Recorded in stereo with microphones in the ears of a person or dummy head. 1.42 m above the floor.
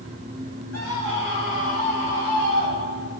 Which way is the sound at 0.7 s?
85° left.